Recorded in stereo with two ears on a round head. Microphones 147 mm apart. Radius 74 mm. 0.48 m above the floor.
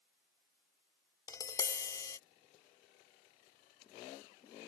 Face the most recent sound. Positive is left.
turn(degrees=20)  # may be behind; listen again after turning